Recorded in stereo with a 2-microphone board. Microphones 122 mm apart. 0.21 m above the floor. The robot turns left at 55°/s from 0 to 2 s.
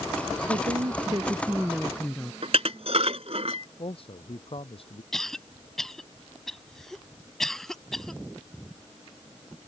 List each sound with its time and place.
0.5 s a woman speaking: 105° right; by 2.3 s 175° left
2.4 s dishes clattering: 65° right (ahead or behind)
3.8 s a man speaking: 55° left (ahead or behind)
5.1 s a cough: 5° left (ahead or behind)